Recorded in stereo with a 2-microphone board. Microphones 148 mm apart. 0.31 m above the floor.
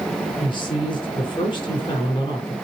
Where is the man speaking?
35° left (ahead or behind), 4 m.